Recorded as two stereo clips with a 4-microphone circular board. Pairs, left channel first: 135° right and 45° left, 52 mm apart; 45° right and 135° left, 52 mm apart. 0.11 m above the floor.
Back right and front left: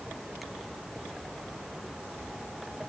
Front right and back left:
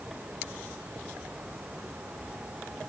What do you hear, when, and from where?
Only background noise.